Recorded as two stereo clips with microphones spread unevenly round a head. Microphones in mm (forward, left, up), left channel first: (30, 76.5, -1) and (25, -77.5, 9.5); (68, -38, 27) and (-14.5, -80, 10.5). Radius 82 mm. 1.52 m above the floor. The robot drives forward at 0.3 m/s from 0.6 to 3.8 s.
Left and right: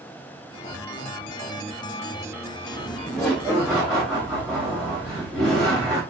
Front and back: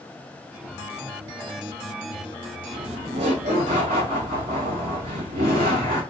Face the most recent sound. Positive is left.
turn(degrees=180)